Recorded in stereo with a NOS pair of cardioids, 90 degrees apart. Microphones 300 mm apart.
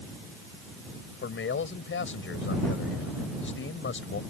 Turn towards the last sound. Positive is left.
turn(degrees=45)